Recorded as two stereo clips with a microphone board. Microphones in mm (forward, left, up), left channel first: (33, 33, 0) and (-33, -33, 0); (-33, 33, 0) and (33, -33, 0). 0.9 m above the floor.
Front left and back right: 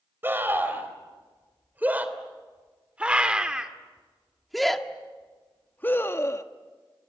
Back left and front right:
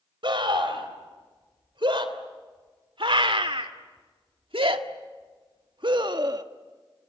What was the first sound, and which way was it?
A scream, 70° right.